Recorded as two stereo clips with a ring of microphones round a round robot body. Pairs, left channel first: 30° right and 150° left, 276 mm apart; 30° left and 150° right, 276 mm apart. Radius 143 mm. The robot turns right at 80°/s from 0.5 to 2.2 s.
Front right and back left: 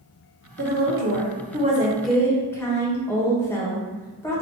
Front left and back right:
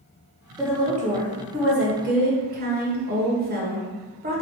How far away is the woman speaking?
About 1.3 m.